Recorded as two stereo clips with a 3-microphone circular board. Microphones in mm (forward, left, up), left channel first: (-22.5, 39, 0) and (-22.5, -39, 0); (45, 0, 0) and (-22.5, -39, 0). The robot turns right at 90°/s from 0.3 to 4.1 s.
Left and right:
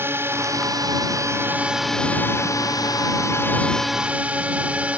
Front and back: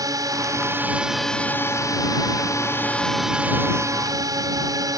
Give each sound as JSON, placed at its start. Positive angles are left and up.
{"t": 0.0, "sound": "a drone", "azimuth_deg": -140}